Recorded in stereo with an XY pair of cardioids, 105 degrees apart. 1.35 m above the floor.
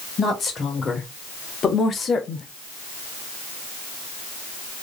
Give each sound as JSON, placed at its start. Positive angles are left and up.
{"t": 0.2, "sound": "a woman speaking", "azimuth_deg": 40, "distance_m": 2.0}